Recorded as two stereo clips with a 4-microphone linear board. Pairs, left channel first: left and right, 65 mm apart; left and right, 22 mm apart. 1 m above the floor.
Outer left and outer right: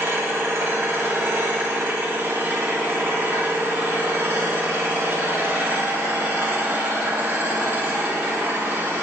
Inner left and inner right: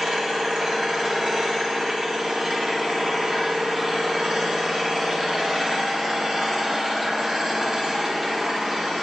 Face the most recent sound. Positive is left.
turn(degrees=-35)  # may be behind; listen again after turning